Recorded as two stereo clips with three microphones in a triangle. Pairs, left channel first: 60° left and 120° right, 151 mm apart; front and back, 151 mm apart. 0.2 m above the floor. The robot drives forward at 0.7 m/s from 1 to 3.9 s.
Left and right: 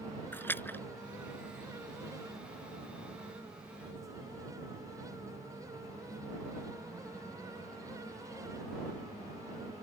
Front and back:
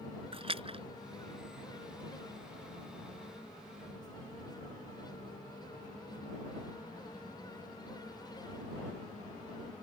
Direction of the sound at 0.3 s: 135° left.